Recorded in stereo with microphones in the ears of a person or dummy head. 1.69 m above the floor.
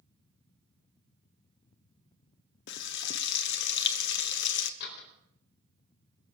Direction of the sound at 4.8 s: 60° left (ahead or behind).